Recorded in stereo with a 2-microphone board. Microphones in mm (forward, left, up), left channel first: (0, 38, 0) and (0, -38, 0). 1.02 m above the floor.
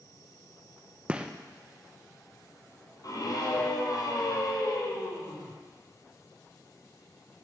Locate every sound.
1.1 s a gunshot: 15° right (ahead or behind), 0.6 m
3.0 s a scream: 55° left (ahead or behind), 3 m